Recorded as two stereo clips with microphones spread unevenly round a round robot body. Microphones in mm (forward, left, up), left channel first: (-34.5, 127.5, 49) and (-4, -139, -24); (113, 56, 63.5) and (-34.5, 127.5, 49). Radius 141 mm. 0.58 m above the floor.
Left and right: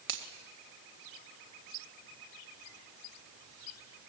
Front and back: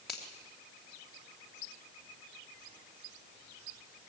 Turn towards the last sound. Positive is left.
turn(degrees=-120)